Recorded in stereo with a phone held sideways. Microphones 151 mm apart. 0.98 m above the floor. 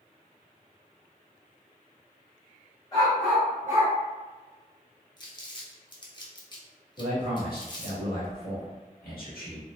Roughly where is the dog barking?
Left.